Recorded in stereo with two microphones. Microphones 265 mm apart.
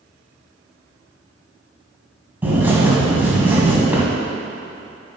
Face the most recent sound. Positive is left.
turn(degrees=-5)  # may be behind; listen again after turning